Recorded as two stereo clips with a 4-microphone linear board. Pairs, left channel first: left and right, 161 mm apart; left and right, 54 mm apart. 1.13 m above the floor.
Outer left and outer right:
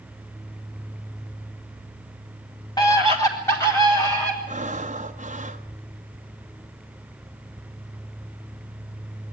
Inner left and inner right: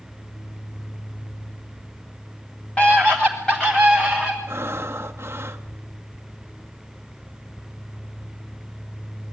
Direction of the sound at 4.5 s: 45° right (ahead or behind).